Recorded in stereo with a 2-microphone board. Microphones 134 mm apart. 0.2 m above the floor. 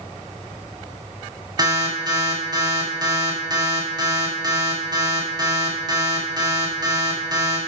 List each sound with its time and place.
1.6 s an alarm: 30° right (ahead or behind), 1.9 m